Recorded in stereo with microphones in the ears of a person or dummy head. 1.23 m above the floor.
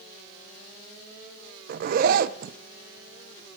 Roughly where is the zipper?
Right.